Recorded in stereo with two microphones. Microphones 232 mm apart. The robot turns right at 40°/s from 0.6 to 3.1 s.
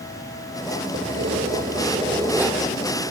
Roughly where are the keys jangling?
Ahead right.